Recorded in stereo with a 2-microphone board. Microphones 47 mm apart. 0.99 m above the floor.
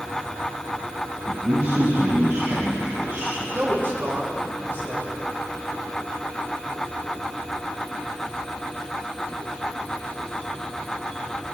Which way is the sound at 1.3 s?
70° right (ahead or behind).